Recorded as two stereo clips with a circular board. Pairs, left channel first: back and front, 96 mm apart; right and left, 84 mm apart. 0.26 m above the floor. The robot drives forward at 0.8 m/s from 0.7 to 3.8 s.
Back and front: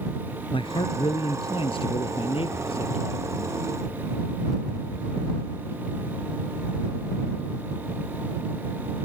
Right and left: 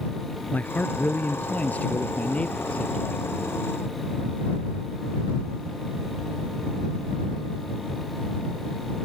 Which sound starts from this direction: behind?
A man speaking, at 0.5 s.